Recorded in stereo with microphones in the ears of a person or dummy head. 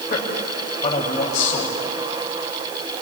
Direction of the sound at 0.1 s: 35° left (ahead or behind).